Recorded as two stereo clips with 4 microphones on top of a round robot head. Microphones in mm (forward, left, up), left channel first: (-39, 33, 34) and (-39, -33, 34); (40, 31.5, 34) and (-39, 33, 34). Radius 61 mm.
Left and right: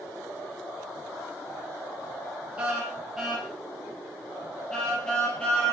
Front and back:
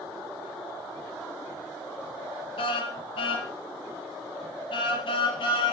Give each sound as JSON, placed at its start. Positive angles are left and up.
{"t": 2.6, "sound": "a car horn", "azimuth_deg": -10, "distance_m": 5.0}